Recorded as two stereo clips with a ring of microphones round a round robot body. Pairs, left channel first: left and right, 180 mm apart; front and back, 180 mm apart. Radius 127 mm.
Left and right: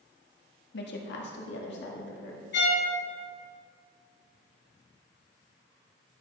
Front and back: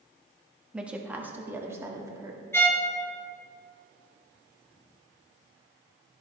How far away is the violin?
About 1.7 m.